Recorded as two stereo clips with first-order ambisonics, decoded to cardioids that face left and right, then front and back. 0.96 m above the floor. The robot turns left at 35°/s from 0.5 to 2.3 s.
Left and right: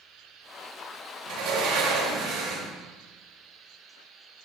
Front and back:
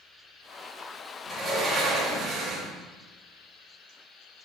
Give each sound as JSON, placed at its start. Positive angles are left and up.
{"t": 1.3, "sound": "a sliding door", "azimuth_deg": -95, "distance_m": 1.6}